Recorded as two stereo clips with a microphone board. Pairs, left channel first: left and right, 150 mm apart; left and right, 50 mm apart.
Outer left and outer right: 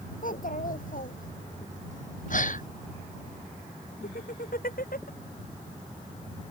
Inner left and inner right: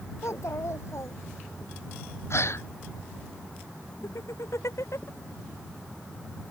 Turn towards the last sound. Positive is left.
turn(degrees=75)  # may be behind; listen again after turning